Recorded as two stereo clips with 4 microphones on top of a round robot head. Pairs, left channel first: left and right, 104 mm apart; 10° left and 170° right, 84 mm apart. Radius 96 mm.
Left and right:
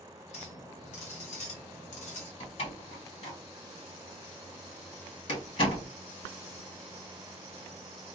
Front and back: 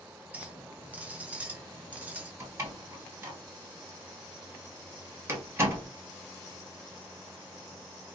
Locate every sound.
0.3 s a clink: 120° left, 0.6 m
2.4 s a door slam: 130° left, 1.2 m